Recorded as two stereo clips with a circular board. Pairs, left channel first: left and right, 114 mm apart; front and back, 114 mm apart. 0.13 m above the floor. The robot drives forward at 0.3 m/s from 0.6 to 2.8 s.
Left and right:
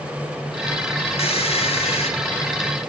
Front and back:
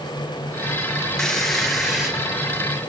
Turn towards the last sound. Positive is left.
turn(degrees=100)